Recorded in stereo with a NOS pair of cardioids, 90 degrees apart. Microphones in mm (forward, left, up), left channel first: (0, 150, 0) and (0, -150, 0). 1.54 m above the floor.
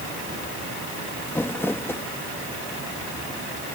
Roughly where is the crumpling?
Ahead.